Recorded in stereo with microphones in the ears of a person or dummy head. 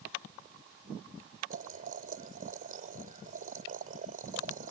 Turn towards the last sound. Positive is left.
turn(degrees=-45)  # may be behind; listen again after turning